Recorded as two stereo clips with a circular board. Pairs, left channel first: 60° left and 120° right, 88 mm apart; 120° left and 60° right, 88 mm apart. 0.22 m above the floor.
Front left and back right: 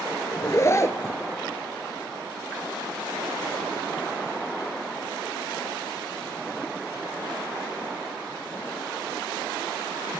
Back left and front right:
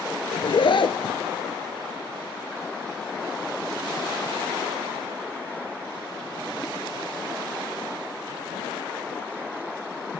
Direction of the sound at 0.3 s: 115° left.